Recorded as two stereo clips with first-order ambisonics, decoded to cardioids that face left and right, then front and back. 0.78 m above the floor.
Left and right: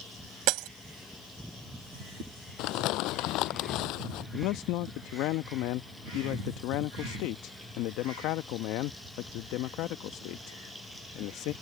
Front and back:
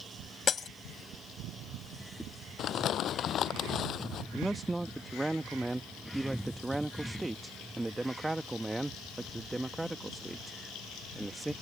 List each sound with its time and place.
0.5 s breaking glass: 65° right
2.6 s crumpling: 55° left
4.3 s a man speaking: 95° left